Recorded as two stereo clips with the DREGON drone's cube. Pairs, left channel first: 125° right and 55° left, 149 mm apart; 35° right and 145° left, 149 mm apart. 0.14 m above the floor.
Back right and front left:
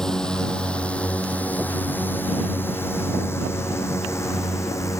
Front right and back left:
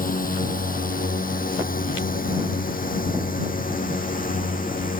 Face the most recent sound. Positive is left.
turn(degrees=-55)